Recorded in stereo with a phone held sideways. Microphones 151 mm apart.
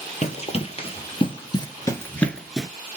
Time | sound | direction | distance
0.2 | running footsteps | 50° left (ahead or behind) | 1.5 m